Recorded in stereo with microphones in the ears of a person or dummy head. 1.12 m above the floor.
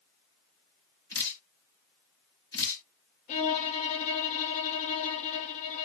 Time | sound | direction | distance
1.1 | dripping | 15° left (ahead or behind) | 1.3 m
3.3 | a violin | 30° left (ahead or behind) | 0.6 m